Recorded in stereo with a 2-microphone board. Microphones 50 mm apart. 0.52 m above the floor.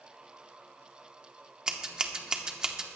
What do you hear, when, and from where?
1.7 s scissors: 15° right (ahead or behind), 1.0 m